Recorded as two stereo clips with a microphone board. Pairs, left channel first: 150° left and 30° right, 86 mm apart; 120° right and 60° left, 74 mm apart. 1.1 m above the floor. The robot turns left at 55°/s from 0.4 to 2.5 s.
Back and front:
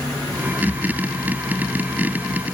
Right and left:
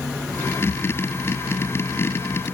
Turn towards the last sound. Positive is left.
No sound to turn to.